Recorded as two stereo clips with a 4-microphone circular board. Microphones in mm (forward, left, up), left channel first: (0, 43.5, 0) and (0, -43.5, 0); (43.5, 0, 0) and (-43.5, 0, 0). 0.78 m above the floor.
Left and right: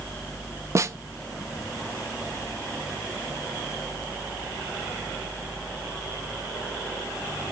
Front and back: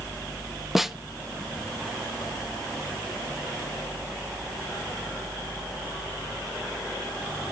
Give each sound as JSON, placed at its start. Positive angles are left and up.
{"t": 0.8, "sound": "a snare drum", "azimuth_deg": -95, "distance_m": 0.6}